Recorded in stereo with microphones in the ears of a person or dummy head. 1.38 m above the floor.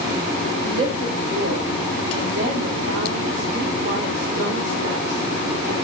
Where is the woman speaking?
35° right (ahead or behind), 2.5 m; by 5.7 s 85° right, 6 m.